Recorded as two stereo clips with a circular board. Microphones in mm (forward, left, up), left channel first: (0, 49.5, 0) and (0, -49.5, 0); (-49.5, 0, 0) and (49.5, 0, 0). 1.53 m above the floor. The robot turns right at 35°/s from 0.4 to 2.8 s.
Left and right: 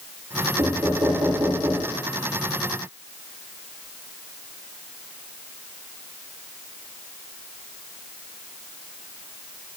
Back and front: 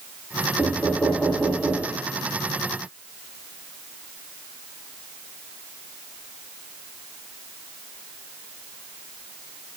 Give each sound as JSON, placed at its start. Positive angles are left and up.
{"t": 0.6, "sound": "knocking", "azimuth_deg": -115, "distance_m": 1.9}